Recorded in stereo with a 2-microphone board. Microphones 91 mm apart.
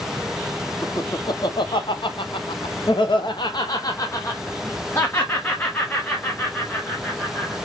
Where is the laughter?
45° left (ahead or behind), 1.3 m; by 7.5 s 10° left (ahead or behind), 2.5 m.